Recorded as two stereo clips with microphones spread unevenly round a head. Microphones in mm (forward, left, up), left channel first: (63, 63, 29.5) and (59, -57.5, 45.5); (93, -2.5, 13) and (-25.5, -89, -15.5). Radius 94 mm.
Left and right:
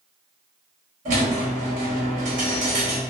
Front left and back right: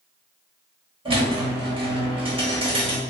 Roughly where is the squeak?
Right.